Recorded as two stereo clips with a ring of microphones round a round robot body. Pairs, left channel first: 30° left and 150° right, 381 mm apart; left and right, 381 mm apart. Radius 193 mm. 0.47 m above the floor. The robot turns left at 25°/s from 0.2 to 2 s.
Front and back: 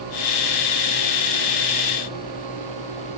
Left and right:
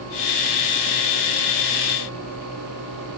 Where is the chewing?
No chewing in this recording.